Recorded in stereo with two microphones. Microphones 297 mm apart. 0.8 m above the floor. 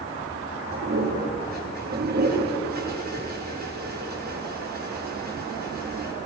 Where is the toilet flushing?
35° right (ahead or behind), 5 m.